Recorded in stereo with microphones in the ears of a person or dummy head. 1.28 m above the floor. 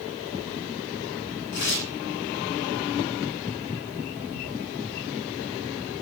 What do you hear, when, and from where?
1.5 s tearing paper: 55° left (ahead or behind), 2.5 m